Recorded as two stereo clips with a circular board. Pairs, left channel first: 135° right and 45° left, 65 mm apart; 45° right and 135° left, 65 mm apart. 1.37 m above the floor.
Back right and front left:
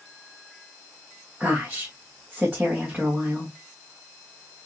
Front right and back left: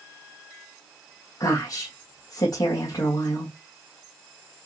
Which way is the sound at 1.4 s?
30° right.